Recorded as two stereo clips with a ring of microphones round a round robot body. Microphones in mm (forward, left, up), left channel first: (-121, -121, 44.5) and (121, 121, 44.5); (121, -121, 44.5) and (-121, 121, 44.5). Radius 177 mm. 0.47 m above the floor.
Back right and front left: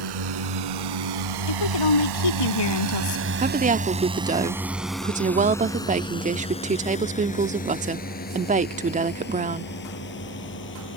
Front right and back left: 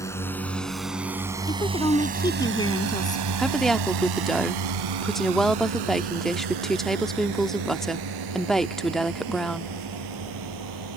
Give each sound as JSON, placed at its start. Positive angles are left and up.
{"t": 0.0, "sound": "a drone", "azimuth_deg": 35}
{"t": 1.5, "sound": "a woman speaking", "azimuth_deg": -125}
{"t": 3.4, "sound": "a woman speaking", "azimuth_deg": 40}